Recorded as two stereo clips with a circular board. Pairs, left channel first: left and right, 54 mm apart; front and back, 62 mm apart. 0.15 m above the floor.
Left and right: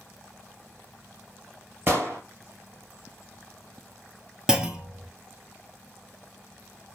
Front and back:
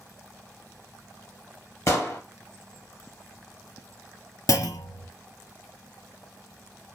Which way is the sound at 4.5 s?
15° right.